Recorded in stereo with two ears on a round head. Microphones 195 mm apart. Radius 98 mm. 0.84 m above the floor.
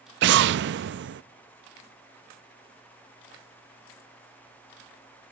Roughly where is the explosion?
Right.